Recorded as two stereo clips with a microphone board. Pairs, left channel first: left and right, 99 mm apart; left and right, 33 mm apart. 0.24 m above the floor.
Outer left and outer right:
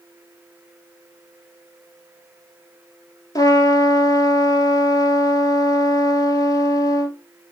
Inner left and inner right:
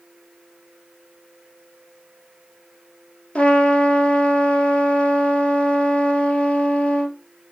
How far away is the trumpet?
About 1.2 m.